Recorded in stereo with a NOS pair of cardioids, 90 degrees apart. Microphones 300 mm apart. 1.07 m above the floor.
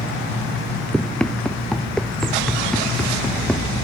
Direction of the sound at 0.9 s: 5° left.